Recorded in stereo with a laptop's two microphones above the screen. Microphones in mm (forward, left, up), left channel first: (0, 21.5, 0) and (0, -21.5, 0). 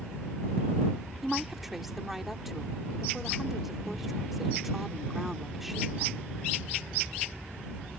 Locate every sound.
1.2 s a woman speaking: 5° right (ahead or behind)